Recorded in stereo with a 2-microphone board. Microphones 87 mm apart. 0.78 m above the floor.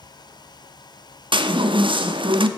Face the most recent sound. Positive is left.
turn(degrees=-75)  # may be behind; listen again after turning